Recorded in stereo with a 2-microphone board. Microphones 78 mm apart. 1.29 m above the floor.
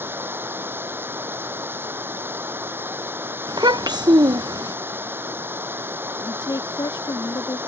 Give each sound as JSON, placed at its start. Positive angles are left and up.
{"t": 0.0, "sound": "running water", "side_deg": -30}
{"t": 3.5, "sound": "a child speaking", "side_deg": -65}
{"t": 6.2, "sound": "a woman speaking", "side_deg": 80}